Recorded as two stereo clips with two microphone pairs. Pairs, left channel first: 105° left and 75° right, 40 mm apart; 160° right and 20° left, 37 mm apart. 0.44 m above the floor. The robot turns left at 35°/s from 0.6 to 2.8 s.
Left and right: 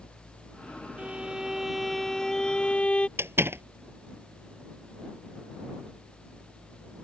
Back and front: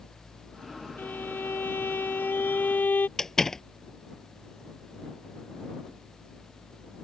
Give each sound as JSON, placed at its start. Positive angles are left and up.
{"t": 1.0, "sound": "a violin", "azimuth_deg": -130}
{"t": 3.2, "sound": "a door slam", "azimuth_deg": -85}